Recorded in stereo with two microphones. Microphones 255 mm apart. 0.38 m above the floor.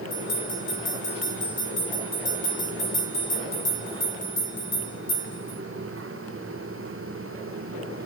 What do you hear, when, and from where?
0.1 s a bell: 50° left (ahead or behind), 2.0 m